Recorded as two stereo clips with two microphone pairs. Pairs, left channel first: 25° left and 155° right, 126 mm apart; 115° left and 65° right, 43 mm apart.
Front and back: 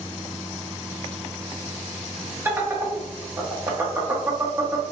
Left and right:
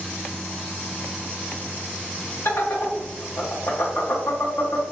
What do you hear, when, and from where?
2.5 s laughter: 135° left, 0.6 m